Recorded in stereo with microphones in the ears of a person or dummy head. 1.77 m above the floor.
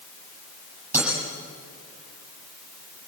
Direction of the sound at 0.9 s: 10° right (ahead or behind).